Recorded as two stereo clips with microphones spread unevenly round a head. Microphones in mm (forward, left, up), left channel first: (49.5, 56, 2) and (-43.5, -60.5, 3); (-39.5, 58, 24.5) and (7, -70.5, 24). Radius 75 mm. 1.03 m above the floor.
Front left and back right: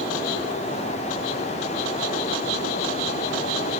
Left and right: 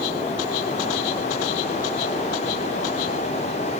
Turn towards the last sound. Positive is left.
No sound to turn to.